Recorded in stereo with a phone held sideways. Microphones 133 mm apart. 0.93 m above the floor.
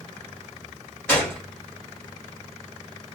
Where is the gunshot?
15° left (ahead or behind), 1.9 m.